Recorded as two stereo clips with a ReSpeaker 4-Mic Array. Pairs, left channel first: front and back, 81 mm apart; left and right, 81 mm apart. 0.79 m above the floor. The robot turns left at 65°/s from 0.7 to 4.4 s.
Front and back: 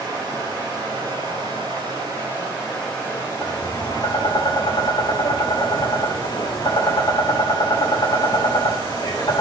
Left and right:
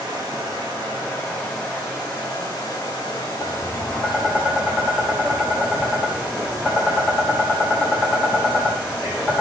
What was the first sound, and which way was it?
Running water, 140° right.